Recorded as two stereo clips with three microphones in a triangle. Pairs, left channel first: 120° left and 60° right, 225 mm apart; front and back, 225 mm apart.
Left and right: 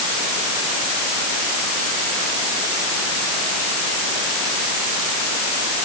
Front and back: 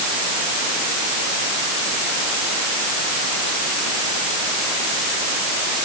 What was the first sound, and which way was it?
Only background noise.